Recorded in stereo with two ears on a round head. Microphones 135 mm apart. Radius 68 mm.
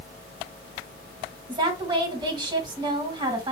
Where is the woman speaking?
30° right (ahead or behind), 2 m.